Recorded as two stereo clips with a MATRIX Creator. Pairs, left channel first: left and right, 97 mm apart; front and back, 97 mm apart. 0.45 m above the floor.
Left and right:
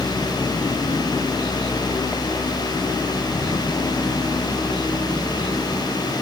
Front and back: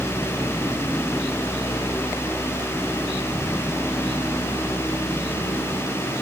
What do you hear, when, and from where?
Only background noise.